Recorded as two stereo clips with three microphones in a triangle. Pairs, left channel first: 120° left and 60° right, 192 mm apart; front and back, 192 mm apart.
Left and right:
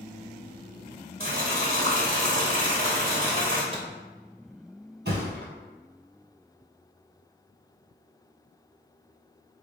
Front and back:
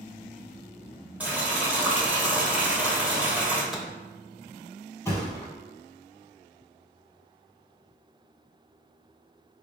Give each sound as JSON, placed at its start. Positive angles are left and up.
{"t": 1.2, "sound": "boiling", "azimuth_deg": -100, "distance_m": 1.0}
{"t": 3.7, "sound": "a microwave", "azimuth_deg": -90, "distance_m": 0.6}
{"t": 5.0, "sound": "a thud", "azimuth_deg": -75, "distance_m": 1.3}